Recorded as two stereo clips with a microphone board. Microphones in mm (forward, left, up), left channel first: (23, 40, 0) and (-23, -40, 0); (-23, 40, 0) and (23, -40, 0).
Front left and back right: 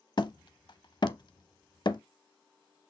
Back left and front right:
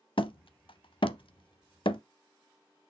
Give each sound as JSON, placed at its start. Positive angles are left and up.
{"t": 0.2, "sound": "hammering", "azimuth_deg": 100, "distance_m": 0.6}